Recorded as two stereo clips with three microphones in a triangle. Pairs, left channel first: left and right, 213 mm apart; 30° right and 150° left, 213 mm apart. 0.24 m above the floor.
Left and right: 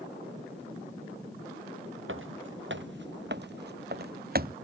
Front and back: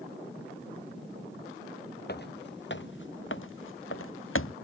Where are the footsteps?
70° right; by 4.5 s 45° right.